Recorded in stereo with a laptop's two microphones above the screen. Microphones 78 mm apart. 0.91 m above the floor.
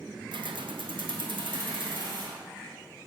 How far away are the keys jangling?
About 0.5 m.